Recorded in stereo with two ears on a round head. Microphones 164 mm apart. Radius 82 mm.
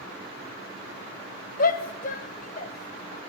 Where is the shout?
50° left (ahead or behind), 1.3 m; by 3.2 s 40° left (ahead or behind), 2.5 m.